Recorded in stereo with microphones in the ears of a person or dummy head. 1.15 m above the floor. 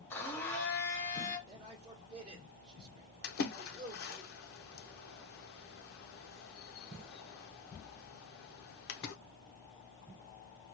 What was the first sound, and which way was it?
A blender, centre (ahead or behind).